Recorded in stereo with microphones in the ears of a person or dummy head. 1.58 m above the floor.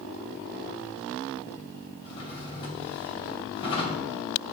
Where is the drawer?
30° left (ahead or behind), 2 m.